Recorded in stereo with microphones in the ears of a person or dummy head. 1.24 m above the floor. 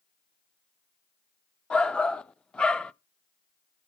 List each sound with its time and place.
1.7 s a shout: 10° left (ahead or behind), 0.7 m